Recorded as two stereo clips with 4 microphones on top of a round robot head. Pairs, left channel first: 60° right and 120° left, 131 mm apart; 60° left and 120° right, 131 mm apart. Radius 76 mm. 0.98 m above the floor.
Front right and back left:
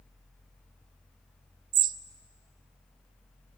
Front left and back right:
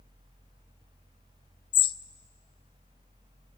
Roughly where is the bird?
Left.